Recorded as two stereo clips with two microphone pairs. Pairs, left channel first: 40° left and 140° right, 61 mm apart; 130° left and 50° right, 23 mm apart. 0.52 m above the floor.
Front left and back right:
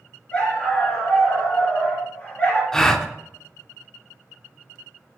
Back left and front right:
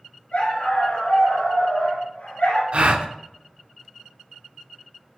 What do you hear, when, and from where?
0.3 s a dog barking: 105° left, 2.5 m
2.7 s a gasp: 40° right, 0.6 m